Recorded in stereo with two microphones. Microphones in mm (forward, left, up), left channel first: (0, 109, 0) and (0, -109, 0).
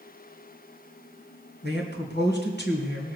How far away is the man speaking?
About 2.5 m.